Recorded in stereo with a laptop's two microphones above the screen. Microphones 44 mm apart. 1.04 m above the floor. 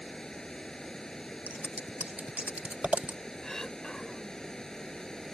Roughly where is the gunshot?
No gunshot in this recording.